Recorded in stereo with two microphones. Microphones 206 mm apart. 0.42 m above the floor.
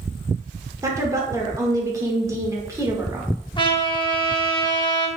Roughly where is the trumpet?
Left.